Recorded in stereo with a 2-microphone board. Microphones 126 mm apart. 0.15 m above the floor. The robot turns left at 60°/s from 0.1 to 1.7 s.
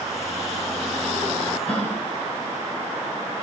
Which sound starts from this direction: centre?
A gasp, at 1.7 s.